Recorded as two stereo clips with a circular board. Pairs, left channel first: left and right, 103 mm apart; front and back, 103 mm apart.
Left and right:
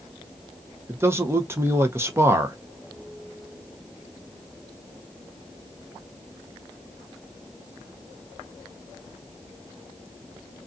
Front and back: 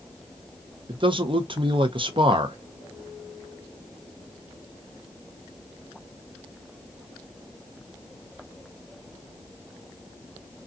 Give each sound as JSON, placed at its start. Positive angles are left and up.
{"t": 0.9, "sound": "a man speaking", "azimuth_deg": -155, "distance_m": 0.6}